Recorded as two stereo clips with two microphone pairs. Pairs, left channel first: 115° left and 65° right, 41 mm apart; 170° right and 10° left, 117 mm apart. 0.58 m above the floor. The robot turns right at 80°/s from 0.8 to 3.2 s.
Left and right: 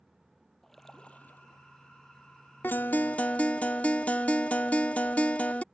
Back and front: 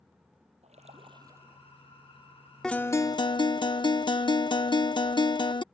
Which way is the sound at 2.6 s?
105° left.